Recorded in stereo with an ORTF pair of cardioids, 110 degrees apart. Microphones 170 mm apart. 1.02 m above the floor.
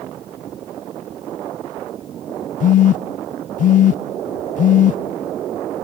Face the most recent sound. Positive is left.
turn(degrees=50)